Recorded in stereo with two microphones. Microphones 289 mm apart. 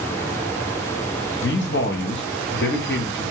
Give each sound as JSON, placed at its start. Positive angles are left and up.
{"t": 1.4, "sound": "a man speaking", "side_deg": 40, "distance_m": 0.8}